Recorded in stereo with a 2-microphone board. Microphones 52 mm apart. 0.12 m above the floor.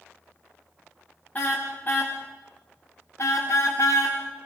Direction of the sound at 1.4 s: 30° left (ahead or behind).